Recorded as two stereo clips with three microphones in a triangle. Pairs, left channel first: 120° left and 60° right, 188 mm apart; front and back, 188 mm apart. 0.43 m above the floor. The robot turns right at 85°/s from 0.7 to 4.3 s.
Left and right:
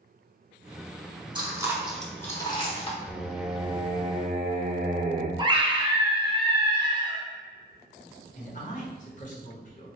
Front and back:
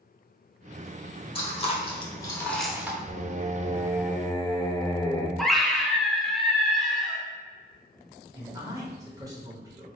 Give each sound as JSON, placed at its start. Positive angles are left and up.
{"t": 1.4, "sound": "chewing", "azimuth_deg": -20, "distance_m": 0.8}
{"t": 3.1, "sound": "singing", "azimuth_deg": -170, "distance_m": 0.5}
{"t": 5.4, "sound": "a scream", "azimuth_deg": -90, "distance_m": 0.8}
{"t": 8.3, "sound": "a man speaking", "azimuth_deg": 120, "distance_m": 1.1}